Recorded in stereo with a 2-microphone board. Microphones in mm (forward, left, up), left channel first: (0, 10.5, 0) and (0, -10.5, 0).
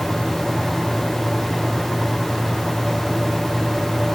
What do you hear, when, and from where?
Only background noise.